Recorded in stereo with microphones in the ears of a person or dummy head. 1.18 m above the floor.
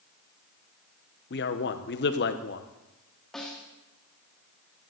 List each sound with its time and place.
1.3 s a man speaking: 45° left (ahead or behind), 0.9 m
3.3 s a snare drum: 5° left (ahead or behind), 2 m